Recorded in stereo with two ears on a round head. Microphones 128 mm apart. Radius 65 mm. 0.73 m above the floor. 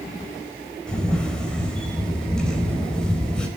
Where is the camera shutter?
5° left (ahead or behind), 4 m.